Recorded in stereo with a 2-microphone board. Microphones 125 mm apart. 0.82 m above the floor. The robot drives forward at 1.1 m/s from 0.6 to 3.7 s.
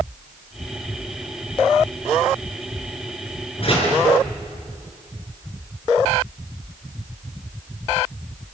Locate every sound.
3.6 s a door slam: 50° left (ahead or behind), 7 m